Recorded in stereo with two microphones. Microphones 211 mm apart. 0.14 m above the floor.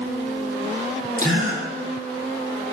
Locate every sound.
1.2 s a gasp: 40° right (ahead or behind), 4 m